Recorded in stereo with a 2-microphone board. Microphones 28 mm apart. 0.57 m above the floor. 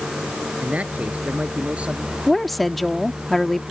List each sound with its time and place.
0.6 s a man speaking: 55° right (ahead or behind); by 2.2 s 45° right (ahead or behind)
2.3 s a woman speaking: 5° left (ahead or behind)